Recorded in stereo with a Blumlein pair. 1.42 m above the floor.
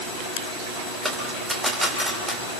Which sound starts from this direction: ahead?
A dropped coin, at 1.1 s.